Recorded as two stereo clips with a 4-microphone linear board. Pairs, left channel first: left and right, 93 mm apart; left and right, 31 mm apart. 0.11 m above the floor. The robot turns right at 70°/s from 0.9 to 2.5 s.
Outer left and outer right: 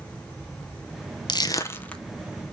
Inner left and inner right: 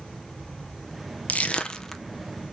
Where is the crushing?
55° left (ahead or behind), 0.6 m; by 2.0 s 10° left (ahead or behind), 0.6 m.